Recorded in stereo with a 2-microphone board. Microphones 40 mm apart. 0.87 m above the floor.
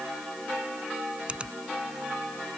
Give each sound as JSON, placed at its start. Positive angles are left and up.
{"t": 1.3, "sound": "a finger snap", "side_deg": -25}